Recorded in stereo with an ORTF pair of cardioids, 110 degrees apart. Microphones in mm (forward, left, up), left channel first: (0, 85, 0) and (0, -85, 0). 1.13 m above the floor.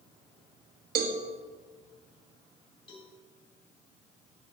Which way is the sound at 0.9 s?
65° right.